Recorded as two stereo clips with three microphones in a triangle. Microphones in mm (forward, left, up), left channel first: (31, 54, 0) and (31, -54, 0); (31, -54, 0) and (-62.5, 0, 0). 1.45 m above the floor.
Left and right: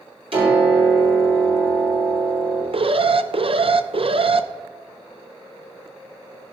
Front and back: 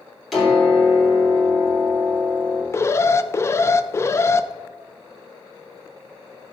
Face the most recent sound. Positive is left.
turn(degrees=-90)